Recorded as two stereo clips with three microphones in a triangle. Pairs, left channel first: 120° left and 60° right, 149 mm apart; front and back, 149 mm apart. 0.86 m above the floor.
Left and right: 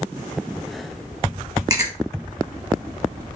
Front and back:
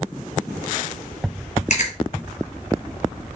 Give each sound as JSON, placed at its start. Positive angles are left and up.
{"t": 1.7, "sound": "chewing", "azimuth_deg": -5, "distance_m": 1.1}